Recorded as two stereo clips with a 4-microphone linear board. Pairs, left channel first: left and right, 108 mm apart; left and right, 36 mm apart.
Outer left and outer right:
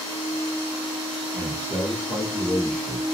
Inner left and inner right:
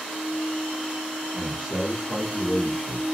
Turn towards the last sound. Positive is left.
turn(degrees=5)  # may be behind; listen again after turning